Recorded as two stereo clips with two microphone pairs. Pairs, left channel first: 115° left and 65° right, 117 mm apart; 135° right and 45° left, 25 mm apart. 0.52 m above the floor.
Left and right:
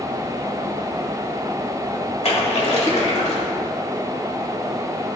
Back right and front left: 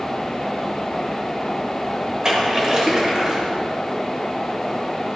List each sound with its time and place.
2.2 s a splash: 105° left, 1.8 m